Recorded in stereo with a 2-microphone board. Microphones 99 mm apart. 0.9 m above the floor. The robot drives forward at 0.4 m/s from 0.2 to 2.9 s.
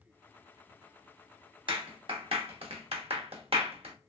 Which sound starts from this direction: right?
A clap, at 1.7 s.